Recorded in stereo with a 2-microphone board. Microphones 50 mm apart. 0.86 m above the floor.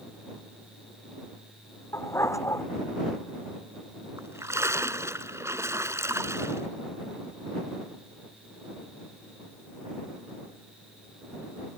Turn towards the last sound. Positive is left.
turn(degrees=-70)  # may be behind; listen again after turning